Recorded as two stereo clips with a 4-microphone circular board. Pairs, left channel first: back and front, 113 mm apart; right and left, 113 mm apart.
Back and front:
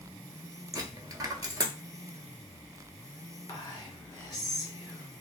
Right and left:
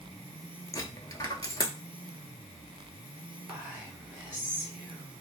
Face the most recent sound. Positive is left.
turn(degrees=155)